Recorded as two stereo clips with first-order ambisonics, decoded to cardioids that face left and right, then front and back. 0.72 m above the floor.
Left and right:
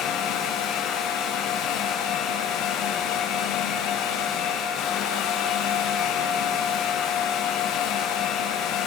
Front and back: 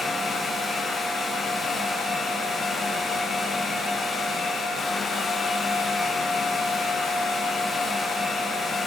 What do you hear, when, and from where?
Only background noise.